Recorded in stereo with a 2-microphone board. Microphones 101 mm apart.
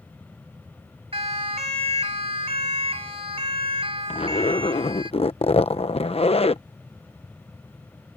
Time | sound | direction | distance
1.1 | a siren | 75° right (ahead or behind) | ?
4.1 | a zipper | 75° left (ahead or behind) | ?